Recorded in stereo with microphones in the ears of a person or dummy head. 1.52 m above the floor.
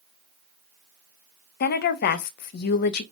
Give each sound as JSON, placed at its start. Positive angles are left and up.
{"t": 1.6, "sound": "a woman speaking", "side_deg": 55, "distance_m": 0.5}